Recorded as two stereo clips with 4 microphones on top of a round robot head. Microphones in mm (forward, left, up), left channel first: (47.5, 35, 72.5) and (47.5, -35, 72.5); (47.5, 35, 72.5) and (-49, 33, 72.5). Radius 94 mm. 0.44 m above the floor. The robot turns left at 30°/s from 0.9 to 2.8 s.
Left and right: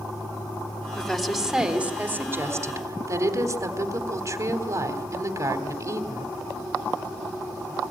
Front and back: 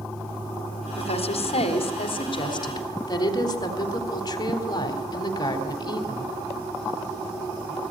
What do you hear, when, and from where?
1.0 s a woman speaking: 5° left, 3.5 m; by 6.3 s 50° right, 3.5 m